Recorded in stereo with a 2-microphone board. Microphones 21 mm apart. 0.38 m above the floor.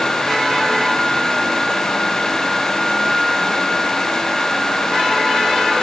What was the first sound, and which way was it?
Only background noise.